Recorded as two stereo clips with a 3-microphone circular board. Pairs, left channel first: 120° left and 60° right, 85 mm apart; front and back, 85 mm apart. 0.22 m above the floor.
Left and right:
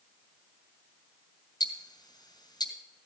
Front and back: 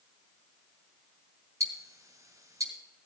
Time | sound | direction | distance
1.6 | ticking | 135° left | 2 m